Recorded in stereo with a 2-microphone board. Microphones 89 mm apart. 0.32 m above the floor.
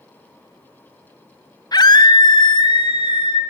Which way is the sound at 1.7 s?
50° left (ahead or behind).